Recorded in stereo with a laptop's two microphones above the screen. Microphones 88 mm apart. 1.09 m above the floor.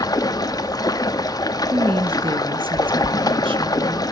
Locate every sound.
0.0 s running water: 45° left (ahead or behind), 1.5 m
1.7 s a woman speaking: 75° right (ahead or behind), 1.5 m